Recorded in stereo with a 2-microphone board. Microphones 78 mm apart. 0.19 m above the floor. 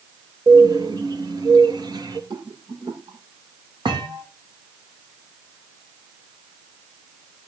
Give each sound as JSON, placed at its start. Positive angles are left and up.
{"t": 0.5, "sound": "a bird", "side_deg": -65, "distance_m": 3.0}
{"t": 2.3, "sound": "a rattle", "side_deg": -70, "distance_m": 6.5}
{"t": 3.9, "sound": "a thud", "side_deg": -90, "distance_m": 5.0}